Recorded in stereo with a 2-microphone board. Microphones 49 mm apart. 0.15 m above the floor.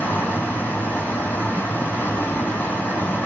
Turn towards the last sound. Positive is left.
turn(degrees=40)  # may be behind; listen again after turning